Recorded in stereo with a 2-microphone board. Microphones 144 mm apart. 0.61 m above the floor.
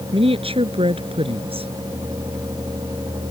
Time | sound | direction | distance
0.1 | a woman speaking | 40° right (ahead or behind) | ?